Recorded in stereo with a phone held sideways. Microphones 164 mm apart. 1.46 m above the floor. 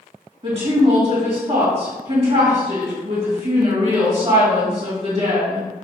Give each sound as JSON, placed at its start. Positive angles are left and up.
{"t": 0.4, "sound": "a woman speaking", "side_deg": -40, "distance_m": 2.0}